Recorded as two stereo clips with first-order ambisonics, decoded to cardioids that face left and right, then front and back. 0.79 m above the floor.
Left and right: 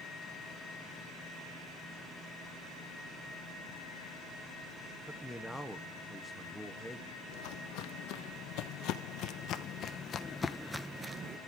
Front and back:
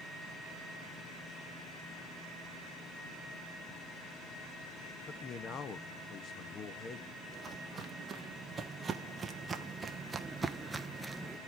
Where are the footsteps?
105° left, 2 m; by 11.4 s 95° right, 0.8 m.